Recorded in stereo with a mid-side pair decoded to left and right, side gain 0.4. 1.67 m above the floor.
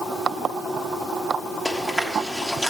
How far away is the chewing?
About 3 m.